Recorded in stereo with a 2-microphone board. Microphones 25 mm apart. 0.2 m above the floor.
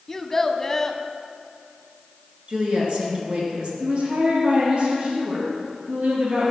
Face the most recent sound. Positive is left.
turn(degrees=-45)  # may be behind; listen again after turning